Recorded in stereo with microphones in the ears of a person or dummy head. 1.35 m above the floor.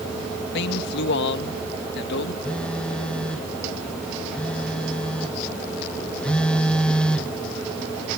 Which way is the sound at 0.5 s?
65° left (ahead or behind).